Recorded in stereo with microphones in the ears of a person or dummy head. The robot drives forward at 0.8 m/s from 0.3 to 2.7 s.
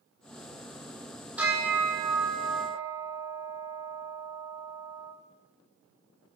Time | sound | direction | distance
1.4 | a bell | 10° right (ahead or behind) | 6 m